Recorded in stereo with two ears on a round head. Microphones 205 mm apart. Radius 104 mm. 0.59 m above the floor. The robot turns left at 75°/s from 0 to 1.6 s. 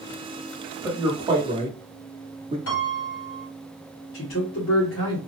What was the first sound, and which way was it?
A man speaking, 5° right (ahead or behind).